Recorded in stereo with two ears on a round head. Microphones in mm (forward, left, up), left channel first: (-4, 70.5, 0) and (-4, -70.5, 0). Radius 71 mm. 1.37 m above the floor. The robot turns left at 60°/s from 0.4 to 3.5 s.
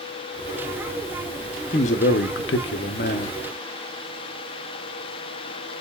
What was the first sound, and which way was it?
A man speaking, 140° left.